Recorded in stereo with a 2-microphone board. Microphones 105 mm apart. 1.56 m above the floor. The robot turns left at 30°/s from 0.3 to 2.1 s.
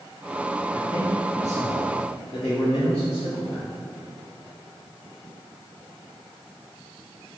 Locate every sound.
0.7 s a man speaking: 115° left, 1.9 m; by 3.7 s 75° left, 1.9 m